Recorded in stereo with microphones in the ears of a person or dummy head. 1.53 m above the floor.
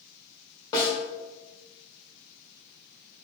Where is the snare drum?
25° left (ahead or behind), 1.0 m.